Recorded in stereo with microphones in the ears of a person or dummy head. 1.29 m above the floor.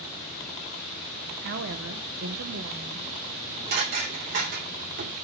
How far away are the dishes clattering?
About 2 m.